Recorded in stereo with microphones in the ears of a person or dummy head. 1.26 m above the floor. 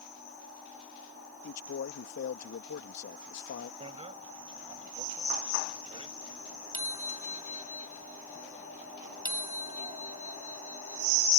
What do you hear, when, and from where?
1.4 s a man speaking: 60° left (ahead or behind)
3.8 s a bicycle bell: 30° right (ahead or behind)